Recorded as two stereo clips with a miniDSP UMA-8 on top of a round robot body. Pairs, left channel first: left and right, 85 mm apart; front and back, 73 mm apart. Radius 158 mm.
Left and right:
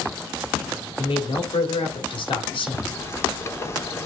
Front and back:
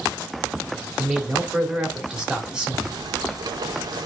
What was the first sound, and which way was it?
A man speaking, 100° left.